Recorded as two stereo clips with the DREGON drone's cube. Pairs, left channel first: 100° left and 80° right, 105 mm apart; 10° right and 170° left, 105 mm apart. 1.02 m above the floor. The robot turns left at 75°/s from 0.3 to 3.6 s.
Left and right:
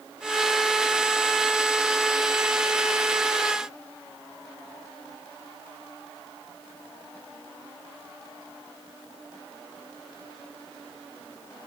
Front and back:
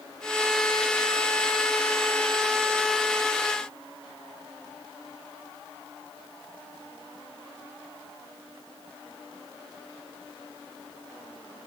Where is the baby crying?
No baby crying in this recording.